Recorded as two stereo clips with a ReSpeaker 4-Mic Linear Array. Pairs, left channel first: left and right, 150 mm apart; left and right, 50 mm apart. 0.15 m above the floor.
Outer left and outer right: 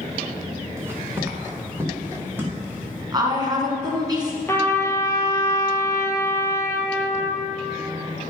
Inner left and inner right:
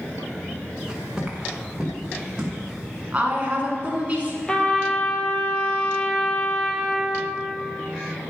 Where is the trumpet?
15° left (ahead or behind), 1.2 m.